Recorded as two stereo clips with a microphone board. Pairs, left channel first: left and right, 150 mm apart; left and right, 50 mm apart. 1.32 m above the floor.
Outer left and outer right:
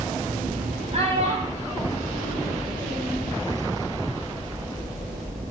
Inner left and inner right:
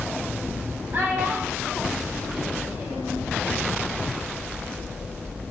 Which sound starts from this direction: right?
A child speaking, at 0.9 s.